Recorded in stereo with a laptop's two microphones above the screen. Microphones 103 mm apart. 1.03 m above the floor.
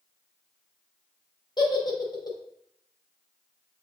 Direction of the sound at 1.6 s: 40° left (ahead or behind).